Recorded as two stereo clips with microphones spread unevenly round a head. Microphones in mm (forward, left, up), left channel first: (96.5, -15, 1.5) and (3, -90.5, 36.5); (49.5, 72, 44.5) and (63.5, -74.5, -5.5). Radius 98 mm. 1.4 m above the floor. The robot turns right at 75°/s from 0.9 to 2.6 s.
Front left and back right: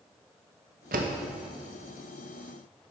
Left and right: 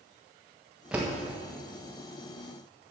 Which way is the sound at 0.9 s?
175° right.